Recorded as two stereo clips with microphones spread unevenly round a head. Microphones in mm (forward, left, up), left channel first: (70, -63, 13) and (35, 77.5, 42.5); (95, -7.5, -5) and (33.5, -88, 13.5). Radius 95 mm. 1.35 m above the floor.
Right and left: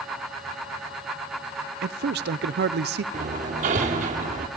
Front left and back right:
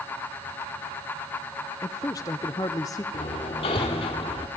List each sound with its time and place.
1.8 s a man speaking: 115° left, 0.5 m
3.1 s hammering: 105° left, 1.3 m